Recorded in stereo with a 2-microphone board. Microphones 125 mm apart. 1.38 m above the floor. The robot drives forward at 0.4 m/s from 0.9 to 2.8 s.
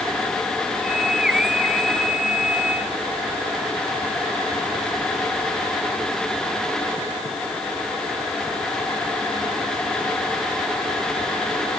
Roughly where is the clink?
I don't hear a clink.